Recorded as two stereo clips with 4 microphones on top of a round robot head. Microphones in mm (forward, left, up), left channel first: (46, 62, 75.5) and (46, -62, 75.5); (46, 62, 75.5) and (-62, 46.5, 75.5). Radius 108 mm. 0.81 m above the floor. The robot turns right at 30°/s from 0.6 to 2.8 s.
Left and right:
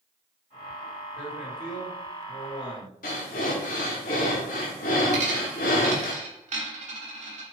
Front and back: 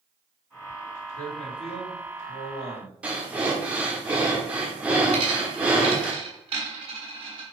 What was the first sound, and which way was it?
A man speaking, 10° right.